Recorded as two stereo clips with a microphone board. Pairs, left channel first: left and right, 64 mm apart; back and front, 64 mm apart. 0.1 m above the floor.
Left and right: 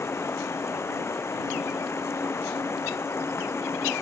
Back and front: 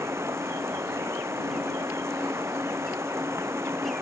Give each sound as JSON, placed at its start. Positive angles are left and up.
{"t": 0.0, "sound": "running water", "azimuth_deg": 45}